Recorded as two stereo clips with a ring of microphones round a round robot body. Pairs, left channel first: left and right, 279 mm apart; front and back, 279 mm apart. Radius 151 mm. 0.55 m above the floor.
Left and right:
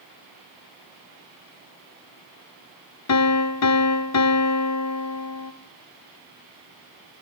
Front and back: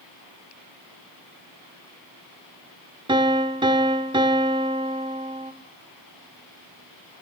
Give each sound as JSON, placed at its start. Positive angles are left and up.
{"t": 3.1, "sound": "a piano", "azimuth_deg": 110, "distance_m": 1.5}